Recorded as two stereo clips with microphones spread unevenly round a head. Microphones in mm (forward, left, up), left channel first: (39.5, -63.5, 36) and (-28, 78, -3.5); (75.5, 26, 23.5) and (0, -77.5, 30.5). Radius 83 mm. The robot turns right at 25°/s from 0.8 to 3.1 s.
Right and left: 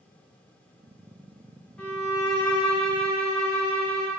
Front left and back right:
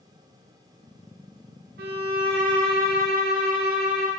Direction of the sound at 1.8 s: 145° right.